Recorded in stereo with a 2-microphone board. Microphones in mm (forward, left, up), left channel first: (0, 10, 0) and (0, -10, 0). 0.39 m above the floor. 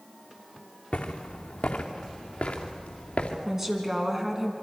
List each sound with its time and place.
0.9 s footsteps: 80° left, 2 m; by 3.4 s 70° left (ahead or behind), 3 m
3.5 s a woman speaking: 20° right (ahead or behind), 3.5 m